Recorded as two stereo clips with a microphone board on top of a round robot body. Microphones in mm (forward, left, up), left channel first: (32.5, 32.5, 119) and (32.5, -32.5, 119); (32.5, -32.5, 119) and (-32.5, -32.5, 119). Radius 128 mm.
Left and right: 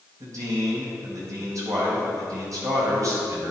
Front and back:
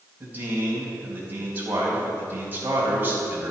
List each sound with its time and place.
0.2 s a man speaking: 120° right, 3.5 m